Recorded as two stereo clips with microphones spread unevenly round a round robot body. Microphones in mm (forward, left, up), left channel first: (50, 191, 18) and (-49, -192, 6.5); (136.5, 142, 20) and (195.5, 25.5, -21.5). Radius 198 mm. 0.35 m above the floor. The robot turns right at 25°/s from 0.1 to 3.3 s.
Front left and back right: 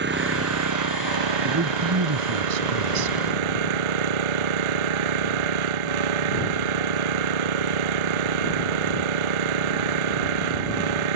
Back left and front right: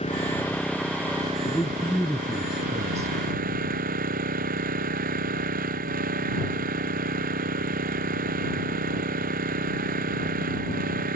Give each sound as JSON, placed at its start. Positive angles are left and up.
{"t": 0.0, "sound": "an engine running", "azimuth_deg": -170}
{"t": 1.4, "sound": "a man speaking", "azimuth_deg": -170}